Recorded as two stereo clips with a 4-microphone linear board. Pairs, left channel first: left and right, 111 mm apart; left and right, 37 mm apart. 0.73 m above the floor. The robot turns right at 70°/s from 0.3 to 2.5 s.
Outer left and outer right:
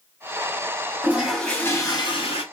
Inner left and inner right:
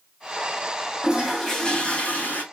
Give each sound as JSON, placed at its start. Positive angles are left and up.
{"t": 1.0, "sound": "a toilet flushing", "azimuth_deg": -20, "distance_m": 1.4}